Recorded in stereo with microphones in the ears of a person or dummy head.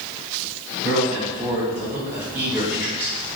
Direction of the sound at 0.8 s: 15° right (ahead or behind).